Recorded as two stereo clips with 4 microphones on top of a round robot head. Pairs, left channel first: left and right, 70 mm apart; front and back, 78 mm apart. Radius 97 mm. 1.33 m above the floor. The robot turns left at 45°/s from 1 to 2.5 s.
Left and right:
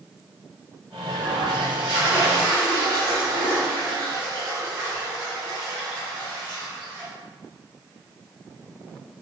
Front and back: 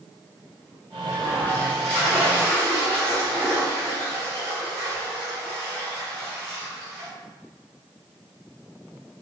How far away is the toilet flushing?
About 1.6 m.